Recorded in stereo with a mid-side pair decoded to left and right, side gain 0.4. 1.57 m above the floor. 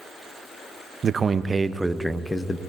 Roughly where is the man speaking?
Ahead right.